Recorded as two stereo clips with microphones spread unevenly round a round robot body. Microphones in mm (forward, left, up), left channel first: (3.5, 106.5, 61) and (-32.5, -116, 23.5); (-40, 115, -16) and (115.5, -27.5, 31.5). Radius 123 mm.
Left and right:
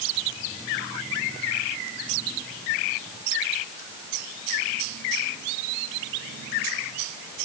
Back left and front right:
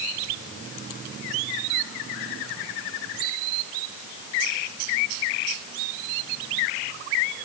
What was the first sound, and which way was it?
Only background noise.